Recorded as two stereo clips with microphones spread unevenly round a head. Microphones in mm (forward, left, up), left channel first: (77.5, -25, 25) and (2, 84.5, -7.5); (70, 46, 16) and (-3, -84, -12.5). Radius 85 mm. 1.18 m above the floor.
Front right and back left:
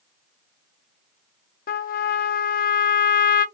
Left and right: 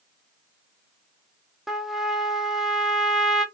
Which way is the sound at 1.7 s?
35° right.